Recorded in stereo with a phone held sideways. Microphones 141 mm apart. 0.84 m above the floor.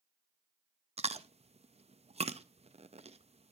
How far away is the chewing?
About 0.5 m.